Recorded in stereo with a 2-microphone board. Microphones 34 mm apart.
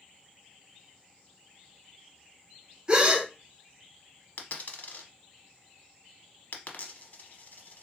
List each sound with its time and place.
2.9 s a gasp: 25° right (ahead or behind), 0.6 m
4.4 s a dropped coin: 55° left (ahead or behind), 0.7 m